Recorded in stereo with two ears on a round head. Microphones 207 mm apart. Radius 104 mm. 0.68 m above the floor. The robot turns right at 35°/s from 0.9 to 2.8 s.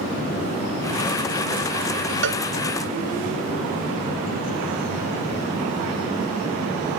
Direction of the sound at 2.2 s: 55° right (ahead or behind).